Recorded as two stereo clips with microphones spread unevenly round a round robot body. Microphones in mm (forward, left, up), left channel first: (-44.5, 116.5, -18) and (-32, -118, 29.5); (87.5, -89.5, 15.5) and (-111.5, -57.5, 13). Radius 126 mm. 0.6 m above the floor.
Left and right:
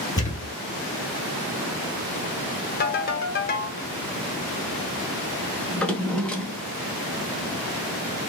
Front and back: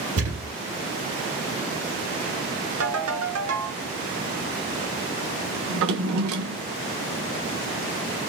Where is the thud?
170° left, 2.5 m.